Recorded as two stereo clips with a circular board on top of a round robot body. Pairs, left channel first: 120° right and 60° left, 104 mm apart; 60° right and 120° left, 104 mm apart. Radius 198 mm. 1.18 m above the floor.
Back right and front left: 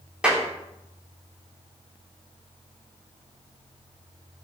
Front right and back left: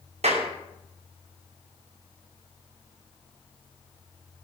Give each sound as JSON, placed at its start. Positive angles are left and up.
{"t": 0.2, "sound": "a clap", "azimuth_deg": 140, "distance_m": 3.0}